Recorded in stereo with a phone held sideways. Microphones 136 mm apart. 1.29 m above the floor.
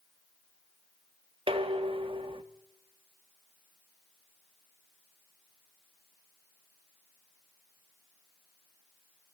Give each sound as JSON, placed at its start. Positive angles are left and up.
{"t": 1.5, "sound": "dishes clattering", "side_deg": -40, "distance_m": 1.2}